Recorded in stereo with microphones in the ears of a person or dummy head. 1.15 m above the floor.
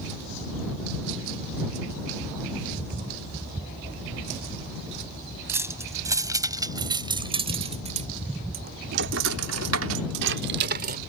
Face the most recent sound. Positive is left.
turn(degrees=-50)  # may be behind; listen again after turning